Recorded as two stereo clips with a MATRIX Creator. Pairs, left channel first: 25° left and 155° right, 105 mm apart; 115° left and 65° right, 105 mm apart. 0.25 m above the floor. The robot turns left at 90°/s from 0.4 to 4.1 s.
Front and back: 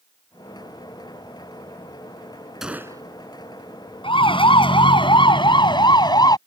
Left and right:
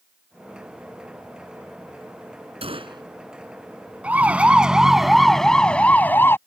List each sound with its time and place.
2.6 s a gunshot: 75° right; by 3.0 s 110° right
4.0 s a siren: 10° left; by 6.4 s 55° left